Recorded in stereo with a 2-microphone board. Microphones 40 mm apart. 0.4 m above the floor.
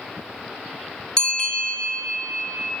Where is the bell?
20° left (ahead or behind), 1.5 m.